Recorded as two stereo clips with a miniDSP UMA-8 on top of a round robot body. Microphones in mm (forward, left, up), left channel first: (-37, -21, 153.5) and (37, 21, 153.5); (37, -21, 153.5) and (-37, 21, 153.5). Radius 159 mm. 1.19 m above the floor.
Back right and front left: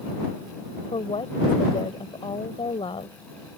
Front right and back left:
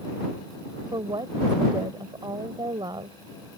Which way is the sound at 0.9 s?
170° right.